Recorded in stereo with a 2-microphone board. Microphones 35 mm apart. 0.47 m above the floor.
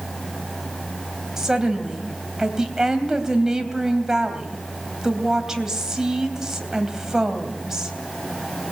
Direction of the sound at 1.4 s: 15° right (ahead or behind).